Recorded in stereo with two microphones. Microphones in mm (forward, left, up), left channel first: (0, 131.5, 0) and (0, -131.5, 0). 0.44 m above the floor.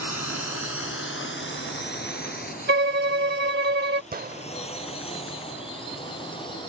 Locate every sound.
0.0 s a drone: 70° left (ahead or behind); by 6.7 s 20° left (ahead or behind)
2.7 s a violin: 40° right (ahead or behind)
4.1 s a gunshot: 35° right (ahead or behind)